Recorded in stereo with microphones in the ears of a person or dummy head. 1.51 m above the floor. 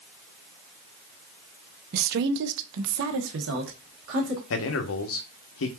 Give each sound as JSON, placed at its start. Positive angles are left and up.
{"t": 1.9, "sound": "a woman speaking", "side_deg": -45, "distance_m": 0.7}
{"t": 4.5, "sound": "a man speaking", "side_deg": 65, "distance_m": 0.9}